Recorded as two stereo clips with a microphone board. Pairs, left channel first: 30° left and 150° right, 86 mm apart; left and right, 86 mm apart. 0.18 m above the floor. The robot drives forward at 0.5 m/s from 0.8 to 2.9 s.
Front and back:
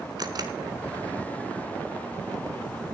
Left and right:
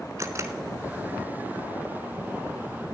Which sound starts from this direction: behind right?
A camera shutter, at 0.2 s.